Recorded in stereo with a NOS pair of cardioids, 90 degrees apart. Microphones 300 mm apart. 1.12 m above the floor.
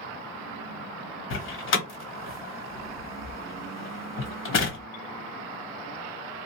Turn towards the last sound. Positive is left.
turn(degrees=45)